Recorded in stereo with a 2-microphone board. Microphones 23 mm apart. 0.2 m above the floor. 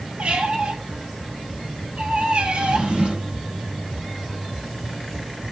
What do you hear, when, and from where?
0.2 s a squeak: 70° right (ahead or behind), 1.4 m
2.5 s a drawer: 70° right (ahead or behind), 2.5 m